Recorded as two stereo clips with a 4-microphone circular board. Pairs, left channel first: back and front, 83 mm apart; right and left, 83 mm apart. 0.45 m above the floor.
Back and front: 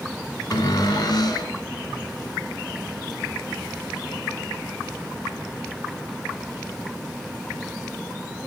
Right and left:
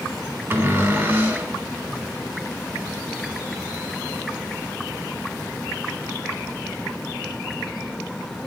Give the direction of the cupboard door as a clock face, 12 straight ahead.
7 o'clock.